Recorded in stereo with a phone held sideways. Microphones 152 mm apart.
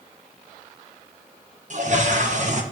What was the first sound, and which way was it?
A toilet flushing, 55° right (ahead or behind).